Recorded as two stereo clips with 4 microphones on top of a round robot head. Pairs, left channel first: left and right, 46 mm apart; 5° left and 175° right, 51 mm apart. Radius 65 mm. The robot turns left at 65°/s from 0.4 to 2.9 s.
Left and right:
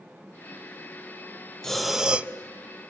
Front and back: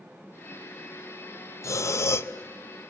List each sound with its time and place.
1.6 s breathing: 10° left, 0.8 m; by 2.3 s 35° right, 0.8 m